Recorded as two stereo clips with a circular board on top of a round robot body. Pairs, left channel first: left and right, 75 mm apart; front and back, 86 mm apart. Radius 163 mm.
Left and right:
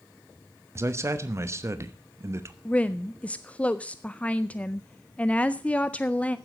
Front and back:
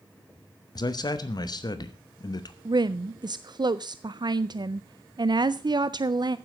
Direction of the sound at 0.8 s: 40° right.